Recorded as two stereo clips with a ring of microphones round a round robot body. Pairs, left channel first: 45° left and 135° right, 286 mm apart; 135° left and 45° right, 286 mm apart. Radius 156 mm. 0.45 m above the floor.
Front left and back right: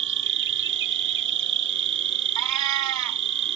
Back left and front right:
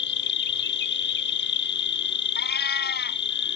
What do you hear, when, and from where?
0.0 s an insect: straight behind
2.4 s a cat meowing: 165° right